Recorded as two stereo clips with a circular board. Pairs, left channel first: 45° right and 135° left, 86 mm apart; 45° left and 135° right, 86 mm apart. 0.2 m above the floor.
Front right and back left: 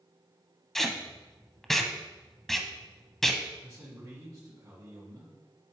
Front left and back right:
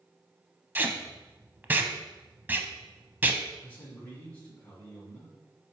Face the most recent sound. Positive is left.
turn(degrees=100)